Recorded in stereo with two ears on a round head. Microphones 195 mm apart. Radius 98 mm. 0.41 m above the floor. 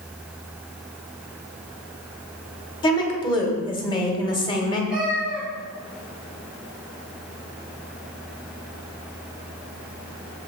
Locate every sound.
2.8 s a woman speaking: 25° left (ahead or behind), 1.7 m
4.9 s a cat meowing: 5° right (ahead or behind), 4 m